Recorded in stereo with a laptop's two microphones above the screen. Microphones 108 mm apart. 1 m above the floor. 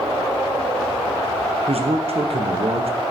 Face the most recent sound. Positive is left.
turn(degrees=-60)  # may be behind; listen again after turning